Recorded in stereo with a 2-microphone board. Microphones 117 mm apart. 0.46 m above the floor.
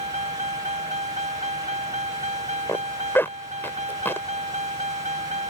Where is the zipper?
20° left (ahead or behind).